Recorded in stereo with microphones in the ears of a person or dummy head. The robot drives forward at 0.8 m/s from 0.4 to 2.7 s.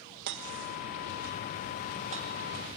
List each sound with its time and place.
0.3 s hammering: 60° right (ahead or behind), 1.7 m; by 2.3 s 35° right (ahead or behind), 2.5 m